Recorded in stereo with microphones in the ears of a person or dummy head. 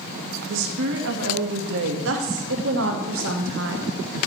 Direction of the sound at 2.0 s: 65° right (ahead or behind).